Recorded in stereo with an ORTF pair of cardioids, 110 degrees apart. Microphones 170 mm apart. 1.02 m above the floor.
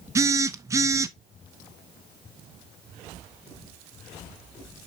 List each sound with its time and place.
0.1 s a phone buzzing: 20° right, 0.6 m